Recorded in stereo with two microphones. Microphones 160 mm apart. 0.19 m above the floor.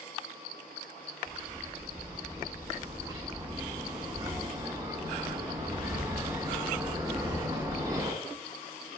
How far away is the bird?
About 1.9 m.